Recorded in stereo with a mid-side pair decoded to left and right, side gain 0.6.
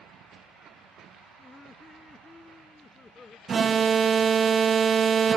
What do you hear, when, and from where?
1.4 s laughter: 15° left; by 3.4 s 20° left
3.5 s an alarm: 35° right